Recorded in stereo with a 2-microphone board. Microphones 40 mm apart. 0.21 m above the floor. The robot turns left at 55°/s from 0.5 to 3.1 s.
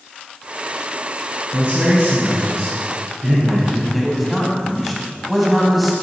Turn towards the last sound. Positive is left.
turn(degrees=-5)  # may be behind; listen again after turning